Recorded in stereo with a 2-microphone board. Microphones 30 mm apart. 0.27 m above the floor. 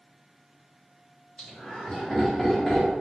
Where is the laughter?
30° left (ahead or behind), 1.8 m; by 2.9 s 5° left (ahead or behind), 1.5 m.